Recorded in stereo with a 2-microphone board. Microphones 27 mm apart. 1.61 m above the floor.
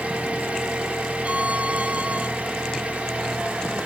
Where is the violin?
55° right (ahead or behind), 0.5 m.